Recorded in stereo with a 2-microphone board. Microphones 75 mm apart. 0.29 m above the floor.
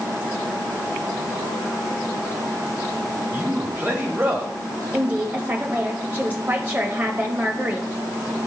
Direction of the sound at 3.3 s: 30° right (ahead or behind).